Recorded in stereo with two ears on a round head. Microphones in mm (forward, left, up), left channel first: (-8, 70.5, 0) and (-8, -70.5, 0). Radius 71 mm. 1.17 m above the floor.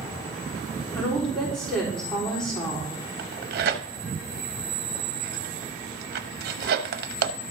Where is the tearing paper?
70° right (ahead or behind), 0.8 m.